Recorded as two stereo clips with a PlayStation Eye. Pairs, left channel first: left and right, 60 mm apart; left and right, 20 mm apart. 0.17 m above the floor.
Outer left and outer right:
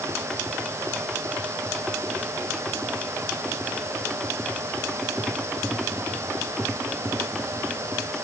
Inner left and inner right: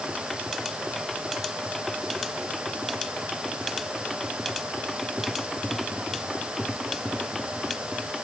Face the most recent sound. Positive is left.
No sound to turn to.